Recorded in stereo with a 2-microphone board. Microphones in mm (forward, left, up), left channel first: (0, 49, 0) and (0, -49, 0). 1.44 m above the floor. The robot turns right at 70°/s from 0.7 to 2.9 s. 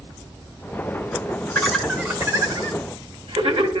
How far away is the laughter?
About 1.5 m.